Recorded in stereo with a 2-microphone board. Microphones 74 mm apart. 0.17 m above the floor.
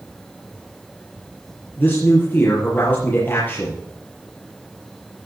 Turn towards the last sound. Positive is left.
turn(degrees=30)  # may be behind; listen again after turning